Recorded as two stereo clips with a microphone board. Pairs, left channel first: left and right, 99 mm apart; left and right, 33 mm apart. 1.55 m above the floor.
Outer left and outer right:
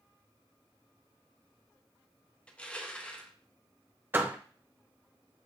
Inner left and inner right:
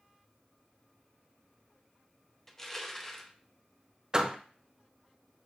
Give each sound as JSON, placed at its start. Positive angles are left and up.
{"t": 2.5, "sound": "crushing", "side_deg": 10, "distance_m": 0.6}
{"t": 4.1, "sound": "a door slam", "side_deg": -20, "distance_m": 0.6}